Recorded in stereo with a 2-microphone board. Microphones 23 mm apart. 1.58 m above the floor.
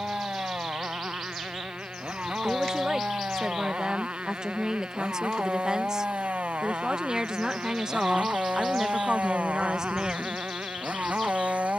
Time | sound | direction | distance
0.0 | a motorcycle | 55° right (ahead or behind) | ?
2.4 | a woman speaking | 35° right (ahead or behind) | ?